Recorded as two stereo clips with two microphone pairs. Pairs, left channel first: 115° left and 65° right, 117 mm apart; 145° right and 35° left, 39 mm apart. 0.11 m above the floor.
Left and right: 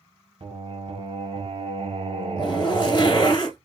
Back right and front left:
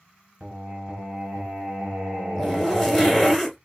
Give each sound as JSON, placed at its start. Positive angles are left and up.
{"t": 0.4, "sound": "singing", "azimuth_deg": -30, "distance_m": 2.5}
{"t": 2.4, "sound": "a zipper", "azimuth_deg": 135, "distance_m": 1.8}